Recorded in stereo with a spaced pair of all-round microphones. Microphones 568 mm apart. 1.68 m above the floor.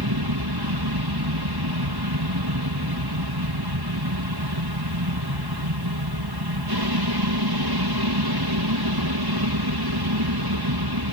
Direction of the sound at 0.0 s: 40° right (ahead or behind).